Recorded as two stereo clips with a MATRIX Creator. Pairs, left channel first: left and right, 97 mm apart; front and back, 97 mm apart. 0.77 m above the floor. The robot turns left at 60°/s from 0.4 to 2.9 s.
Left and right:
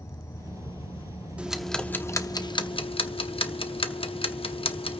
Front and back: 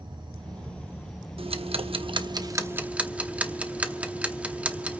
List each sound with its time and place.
0.0 s an insect: 145° left, 2 m; by 5.0 s 5° right, 2 m
1.4 s ticking: 165° right, 0.9 m; by 5.0 s 105° left, 0.9 m